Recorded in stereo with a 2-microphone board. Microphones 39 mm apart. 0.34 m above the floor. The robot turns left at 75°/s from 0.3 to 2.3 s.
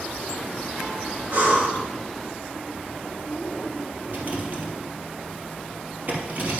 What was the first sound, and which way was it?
Breathing, 35° right.